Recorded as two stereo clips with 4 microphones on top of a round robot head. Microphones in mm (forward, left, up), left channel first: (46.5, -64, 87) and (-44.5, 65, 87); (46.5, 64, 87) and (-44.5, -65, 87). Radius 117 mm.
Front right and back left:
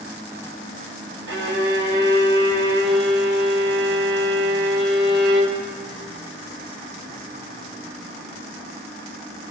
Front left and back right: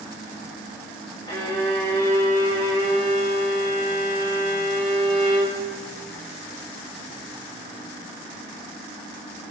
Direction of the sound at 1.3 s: 120° left.